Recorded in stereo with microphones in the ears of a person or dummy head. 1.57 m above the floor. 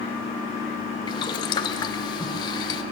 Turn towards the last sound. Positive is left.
turn(degrees=25)  # may be behind; listen again after turning